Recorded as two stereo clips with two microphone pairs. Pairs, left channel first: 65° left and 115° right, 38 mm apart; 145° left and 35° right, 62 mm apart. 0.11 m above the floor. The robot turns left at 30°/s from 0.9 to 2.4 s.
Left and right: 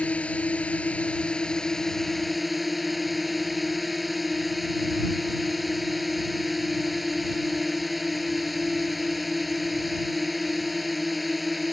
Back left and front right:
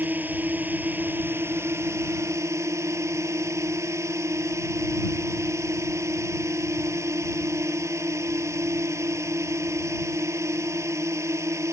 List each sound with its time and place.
0.0 s a drone: 15° left; by 11.7 s 30° right